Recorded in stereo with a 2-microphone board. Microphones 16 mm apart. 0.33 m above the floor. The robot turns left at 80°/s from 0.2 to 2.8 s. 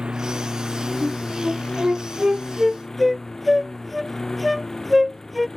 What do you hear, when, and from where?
0.0 s a lawn mower: 125° right; by 5.6 s 30° left
1.0 s a flute: 40° right (ahead or behind); by 5.5 s 5° left (ahead or behind)